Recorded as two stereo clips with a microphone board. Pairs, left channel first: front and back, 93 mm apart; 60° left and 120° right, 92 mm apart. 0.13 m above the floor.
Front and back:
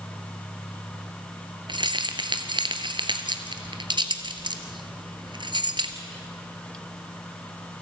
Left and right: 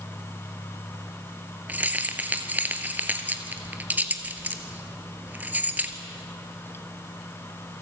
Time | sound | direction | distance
1.7 | keys jangling | 170° left | 1.5 m